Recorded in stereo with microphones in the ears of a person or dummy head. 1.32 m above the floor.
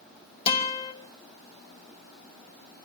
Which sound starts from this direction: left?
A guitar, at 0.5 s.